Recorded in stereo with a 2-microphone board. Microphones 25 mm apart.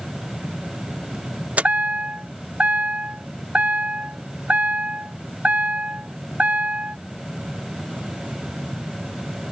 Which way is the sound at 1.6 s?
85° right.